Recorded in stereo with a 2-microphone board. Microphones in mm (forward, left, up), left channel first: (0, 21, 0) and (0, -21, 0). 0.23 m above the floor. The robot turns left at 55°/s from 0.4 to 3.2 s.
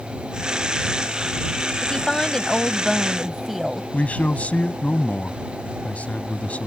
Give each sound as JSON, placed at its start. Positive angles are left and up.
{"t": 1.8, "sound": "a woman speaking", "side_deg": 15}
{"t": 3.9, "sound": "a man speaking", "side_deg": 40}